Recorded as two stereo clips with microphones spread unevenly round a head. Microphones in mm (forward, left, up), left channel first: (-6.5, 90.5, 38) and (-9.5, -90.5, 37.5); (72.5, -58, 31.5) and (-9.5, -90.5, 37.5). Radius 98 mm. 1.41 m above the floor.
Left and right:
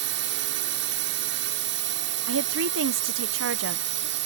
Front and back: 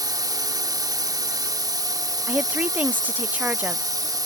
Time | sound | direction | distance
0.0 | a drone | 115° right | ?
2.3 | a woman speaking | 85° right | ?